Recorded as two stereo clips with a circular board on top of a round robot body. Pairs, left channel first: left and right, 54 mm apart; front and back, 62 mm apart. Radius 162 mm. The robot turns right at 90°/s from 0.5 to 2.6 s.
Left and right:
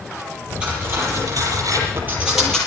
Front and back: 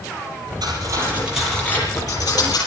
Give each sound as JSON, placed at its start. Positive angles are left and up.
{"t": 0.6, "sound": "cutlery clinking", "azimuth_deg": -165, "distance_m": 7.5}